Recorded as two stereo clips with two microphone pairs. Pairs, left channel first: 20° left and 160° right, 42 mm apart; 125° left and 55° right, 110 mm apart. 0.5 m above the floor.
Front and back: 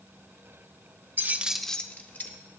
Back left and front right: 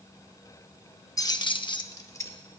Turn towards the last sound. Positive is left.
turn(degrees=60)